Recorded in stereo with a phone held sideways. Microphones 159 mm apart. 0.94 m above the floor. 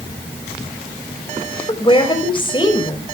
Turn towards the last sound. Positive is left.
turn(degrees=30)  # may be behind; listen again after turning